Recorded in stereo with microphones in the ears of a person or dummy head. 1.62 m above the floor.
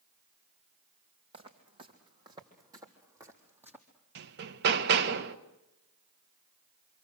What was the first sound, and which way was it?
Footsteps, 30° right (ahead or behind).